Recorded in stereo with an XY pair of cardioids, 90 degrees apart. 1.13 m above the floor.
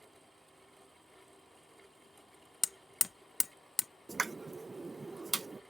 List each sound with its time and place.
0.0 s a fan: 5° right
2.6 s hammering: 25° left
4.1 s a pop: 25° right